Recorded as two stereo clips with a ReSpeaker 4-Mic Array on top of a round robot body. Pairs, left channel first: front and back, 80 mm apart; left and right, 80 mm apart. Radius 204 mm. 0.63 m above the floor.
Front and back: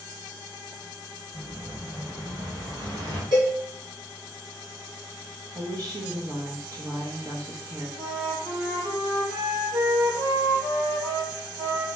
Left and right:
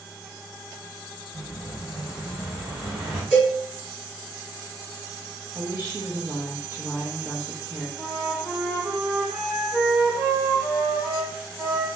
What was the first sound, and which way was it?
An explosion, 170° right.